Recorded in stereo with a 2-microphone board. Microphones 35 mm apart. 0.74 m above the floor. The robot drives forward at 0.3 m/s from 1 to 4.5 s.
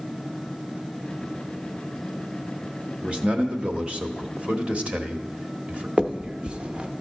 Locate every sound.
3.0 s a man speaking: 35° right (ahead or behind), 1.1 m
6.0 s a finger snap: 30° right (ahead or behind), 0.7 m